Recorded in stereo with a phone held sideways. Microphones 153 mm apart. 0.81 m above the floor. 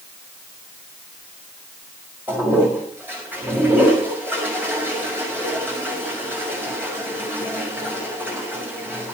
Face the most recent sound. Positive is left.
turn(degrees=-15)  # may be behind; listen again after turning